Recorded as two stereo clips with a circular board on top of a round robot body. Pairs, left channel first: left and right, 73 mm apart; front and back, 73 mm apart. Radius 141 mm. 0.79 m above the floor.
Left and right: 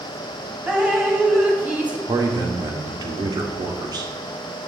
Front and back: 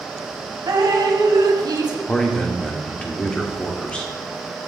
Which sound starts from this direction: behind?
Dripping, at 0.7 s.